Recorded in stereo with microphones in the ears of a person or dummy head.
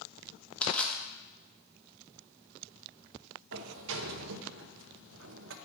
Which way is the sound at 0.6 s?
5° left (ahead or behind).